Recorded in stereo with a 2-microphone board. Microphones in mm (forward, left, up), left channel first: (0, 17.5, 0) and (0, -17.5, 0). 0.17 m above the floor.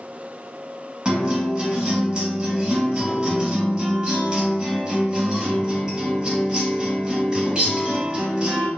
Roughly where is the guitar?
Right.